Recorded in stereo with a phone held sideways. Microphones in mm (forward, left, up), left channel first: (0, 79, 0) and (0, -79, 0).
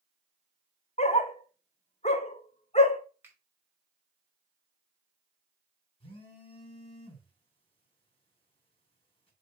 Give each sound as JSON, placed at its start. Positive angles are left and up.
{"t": 1.0, "sound": "a dog barking", "side_deg": 45, "distance_m": 0.8}
{"t": 3.2, "sound": "a finger snap", "side_deg": -15, "distance_m": 2.5}
{"t": 6.0, "sound": "a phone buzzing", "side_deg": 35, "distance_m": 3.5}